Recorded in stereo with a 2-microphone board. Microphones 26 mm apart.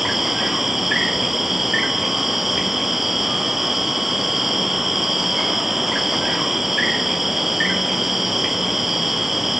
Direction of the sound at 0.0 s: 10° right (ahead or behind).